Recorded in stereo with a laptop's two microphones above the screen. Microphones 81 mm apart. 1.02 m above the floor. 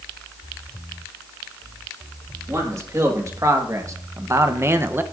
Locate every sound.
2.5 s a man speaking: 35° right (ahead or behind), 2 m; by 5.0 s 25° right (ahead or behind), 0.7 m